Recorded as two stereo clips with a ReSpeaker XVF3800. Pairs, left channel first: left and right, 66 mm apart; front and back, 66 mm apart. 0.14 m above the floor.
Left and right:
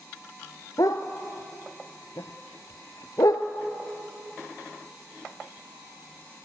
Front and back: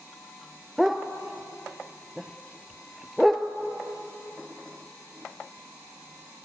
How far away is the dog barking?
About 1.1 m.